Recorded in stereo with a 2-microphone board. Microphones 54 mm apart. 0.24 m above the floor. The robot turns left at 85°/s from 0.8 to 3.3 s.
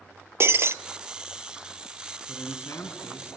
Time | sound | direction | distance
0.4 | breaking glass | 50° right (ahead or behind) | 0.6 m
2.3 | a man speaking | 130° left | 2.5 m